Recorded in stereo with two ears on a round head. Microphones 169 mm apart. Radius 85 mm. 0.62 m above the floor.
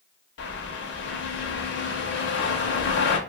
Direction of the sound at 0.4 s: 65° left (ahead or behind).